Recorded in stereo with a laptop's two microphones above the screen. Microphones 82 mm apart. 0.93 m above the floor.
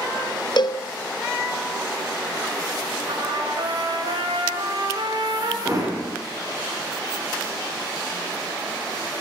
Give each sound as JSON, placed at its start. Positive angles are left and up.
{"t": 0.6, "sound": "a cowbell", "side_deg": 60, "distance_m": 0.7}
{"t": 3.1, "sound": "a trumpet", "side_deg": -70, "distance_m": 4.0}
{"t": 5.7, "sound": "hammering", "side_deg": -40, "distance_m": 9.0}